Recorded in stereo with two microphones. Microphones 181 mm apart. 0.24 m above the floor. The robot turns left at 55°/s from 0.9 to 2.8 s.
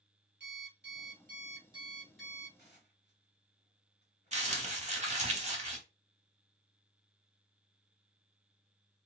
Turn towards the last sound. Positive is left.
turn(degrees=-40)  # may be behind; listen again after turning